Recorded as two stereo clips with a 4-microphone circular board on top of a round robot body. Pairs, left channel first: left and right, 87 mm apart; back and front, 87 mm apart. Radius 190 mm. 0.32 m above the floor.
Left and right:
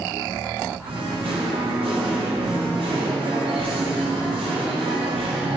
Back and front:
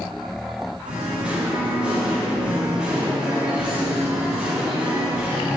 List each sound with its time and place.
0.8 s singing: 80° right, 0.5 m